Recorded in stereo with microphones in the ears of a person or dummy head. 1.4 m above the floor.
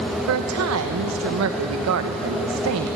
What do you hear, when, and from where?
0.3 s a woman speaking: 85° right, 1.1 m